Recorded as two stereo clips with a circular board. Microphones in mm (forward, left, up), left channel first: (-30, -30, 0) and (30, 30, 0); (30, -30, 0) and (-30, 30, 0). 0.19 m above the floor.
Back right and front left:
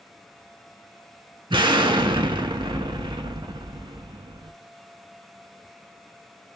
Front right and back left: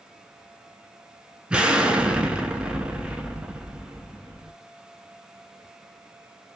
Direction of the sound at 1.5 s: 60° left.